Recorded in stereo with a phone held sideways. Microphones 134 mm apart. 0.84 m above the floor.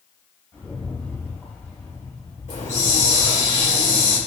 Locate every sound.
0.5 s a rattle: 15° left (ahead or behind), 3.5 m
2.5 s a hiss: 75° left (ahead or behind), 3 m